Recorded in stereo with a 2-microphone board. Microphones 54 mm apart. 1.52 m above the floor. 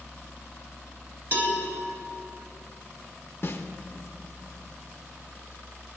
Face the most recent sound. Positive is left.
turn(degrees=45)  # may be behind; listen again after turning